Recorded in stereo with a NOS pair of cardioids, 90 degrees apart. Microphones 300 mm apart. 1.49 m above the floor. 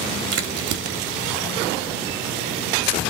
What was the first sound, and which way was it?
A crack, 60° right.